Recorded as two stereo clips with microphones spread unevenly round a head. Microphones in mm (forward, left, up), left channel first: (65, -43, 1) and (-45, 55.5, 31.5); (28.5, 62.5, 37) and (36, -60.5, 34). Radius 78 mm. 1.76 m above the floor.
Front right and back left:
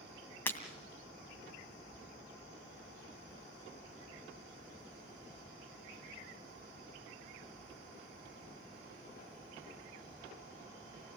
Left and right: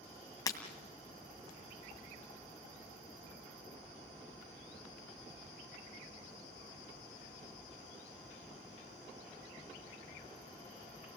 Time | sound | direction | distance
0.5 | breaking glass | 45° left | 2 m